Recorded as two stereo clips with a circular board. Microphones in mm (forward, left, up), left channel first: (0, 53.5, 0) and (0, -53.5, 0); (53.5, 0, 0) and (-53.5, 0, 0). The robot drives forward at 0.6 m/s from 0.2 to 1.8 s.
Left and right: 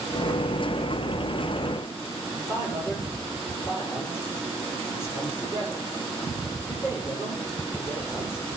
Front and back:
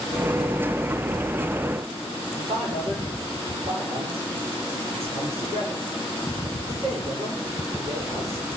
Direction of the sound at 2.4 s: 155° left.